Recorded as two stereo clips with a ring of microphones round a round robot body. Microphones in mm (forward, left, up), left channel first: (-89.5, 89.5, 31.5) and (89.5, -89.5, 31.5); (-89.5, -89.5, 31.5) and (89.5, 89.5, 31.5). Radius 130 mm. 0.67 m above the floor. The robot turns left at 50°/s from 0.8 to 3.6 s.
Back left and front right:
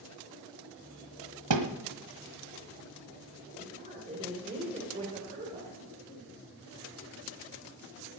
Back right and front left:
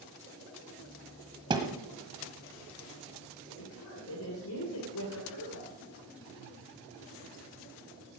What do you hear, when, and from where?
1.5 s a thud: 25° right, 1.4 m; by 1.7 s 35° right, 1.4 m
3.6 s a woman speaking: 110° right, 3 m